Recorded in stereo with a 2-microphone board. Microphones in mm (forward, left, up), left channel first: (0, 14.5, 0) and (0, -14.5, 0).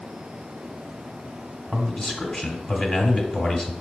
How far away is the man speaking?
About 1.6 m.